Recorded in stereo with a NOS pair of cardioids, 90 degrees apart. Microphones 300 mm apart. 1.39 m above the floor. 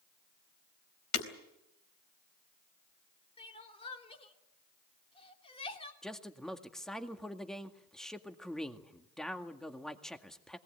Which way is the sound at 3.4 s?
20° left.